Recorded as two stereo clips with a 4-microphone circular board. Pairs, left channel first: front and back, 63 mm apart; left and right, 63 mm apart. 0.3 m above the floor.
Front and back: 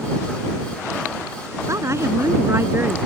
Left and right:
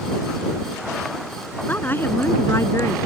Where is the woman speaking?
150° left; by 3.0 s 125° left.